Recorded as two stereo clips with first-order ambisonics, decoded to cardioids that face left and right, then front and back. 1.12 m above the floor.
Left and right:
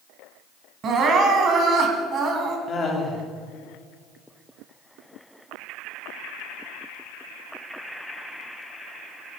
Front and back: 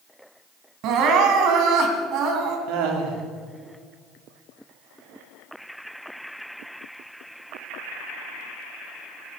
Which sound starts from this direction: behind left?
Laughter, at 2.7 s.